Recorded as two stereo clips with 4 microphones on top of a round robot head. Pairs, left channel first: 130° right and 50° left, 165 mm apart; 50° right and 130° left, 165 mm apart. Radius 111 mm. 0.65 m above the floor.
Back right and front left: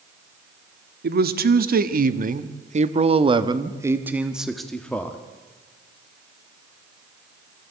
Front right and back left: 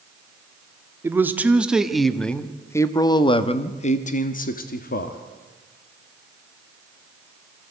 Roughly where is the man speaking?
Ahead left.